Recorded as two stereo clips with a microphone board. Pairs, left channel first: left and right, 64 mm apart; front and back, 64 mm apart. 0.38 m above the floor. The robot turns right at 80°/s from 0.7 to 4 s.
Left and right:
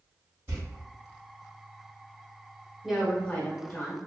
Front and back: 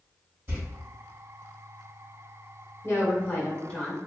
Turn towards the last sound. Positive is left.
turn(degrees=90)